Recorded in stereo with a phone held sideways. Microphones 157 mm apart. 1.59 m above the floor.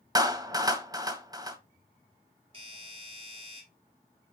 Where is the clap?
25° right (ahead or behind), 1.3 m.